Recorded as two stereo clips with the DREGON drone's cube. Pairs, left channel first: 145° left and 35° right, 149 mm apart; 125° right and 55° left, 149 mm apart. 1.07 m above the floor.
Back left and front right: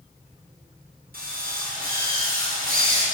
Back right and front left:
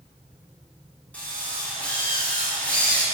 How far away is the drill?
About 9 m.